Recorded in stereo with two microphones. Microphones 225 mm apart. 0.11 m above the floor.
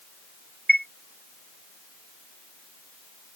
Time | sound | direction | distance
0.7 | a chime | 45° right (ahead or behind) | ?